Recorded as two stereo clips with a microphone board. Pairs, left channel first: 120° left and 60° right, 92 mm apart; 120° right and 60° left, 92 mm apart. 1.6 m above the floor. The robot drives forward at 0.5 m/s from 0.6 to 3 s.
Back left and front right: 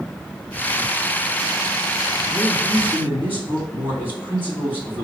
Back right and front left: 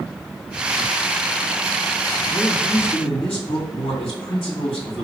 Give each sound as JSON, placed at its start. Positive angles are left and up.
{"t": 2.3, "sound": "a man speaking", "azimuth_deg": -125, "distance_m": 2.5}